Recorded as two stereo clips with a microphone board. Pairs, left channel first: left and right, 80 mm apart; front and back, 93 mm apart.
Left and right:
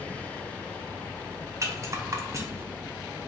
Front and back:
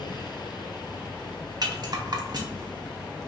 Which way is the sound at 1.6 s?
140° right.